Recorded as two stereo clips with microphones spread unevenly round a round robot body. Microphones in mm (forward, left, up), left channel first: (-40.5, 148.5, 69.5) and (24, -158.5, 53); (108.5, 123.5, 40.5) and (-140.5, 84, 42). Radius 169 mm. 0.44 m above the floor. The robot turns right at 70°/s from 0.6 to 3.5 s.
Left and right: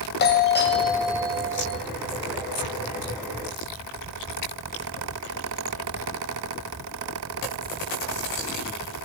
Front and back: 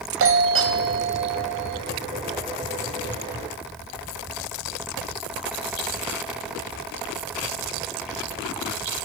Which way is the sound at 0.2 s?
160° left.